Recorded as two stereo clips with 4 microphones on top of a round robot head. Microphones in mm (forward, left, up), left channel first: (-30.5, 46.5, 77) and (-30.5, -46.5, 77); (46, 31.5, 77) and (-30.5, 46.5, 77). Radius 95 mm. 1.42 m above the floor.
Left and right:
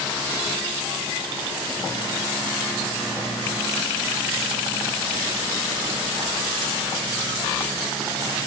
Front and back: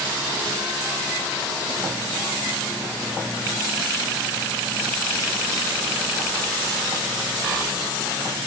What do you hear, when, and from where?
Only background noise.